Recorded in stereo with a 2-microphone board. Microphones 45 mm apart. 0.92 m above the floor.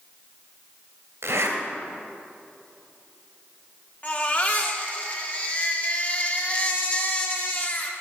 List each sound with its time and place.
1.2 s a zipper: 75° right (ahead or behind), 3 m
4.0 s a baby crying: 35° left (ahead or behind), 1.6 m